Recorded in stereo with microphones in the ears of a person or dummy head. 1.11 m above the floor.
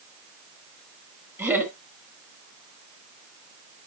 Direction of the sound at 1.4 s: 20° right (ahead or behind).